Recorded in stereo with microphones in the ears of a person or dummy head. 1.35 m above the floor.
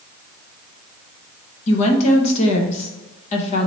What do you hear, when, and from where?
1.7 s a woman speaking: 40° left (ahead or behind), 0.8 m